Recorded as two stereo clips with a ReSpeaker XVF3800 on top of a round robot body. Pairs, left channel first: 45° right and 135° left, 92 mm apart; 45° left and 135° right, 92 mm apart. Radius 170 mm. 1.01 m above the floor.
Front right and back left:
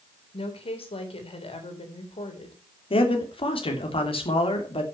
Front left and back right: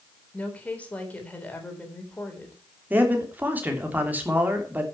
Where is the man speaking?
65° right, 3 m.